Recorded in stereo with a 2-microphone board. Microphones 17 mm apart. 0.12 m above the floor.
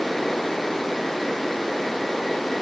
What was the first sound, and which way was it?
Only background noise.